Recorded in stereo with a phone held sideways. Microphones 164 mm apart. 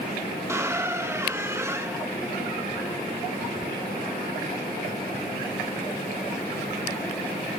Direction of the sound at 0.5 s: 15° right (ahead or behind).